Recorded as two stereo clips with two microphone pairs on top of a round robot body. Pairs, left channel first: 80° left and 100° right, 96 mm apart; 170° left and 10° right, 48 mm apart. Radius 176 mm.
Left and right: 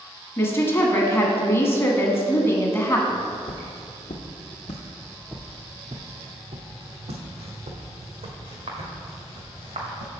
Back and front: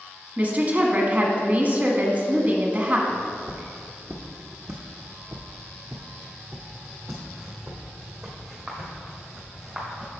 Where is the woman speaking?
35° left, 1.5 m.